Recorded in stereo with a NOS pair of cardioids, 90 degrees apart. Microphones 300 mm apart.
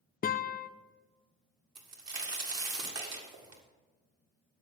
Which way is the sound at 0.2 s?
30° left.